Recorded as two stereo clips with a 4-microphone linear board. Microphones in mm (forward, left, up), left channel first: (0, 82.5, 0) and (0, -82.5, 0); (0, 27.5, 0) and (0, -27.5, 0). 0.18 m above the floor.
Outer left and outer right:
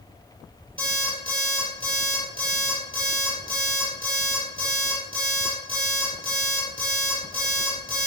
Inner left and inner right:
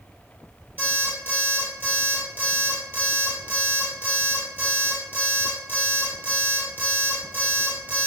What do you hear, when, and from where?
0.8 s an alarm clock: 30° right (ahead or behind), 2 m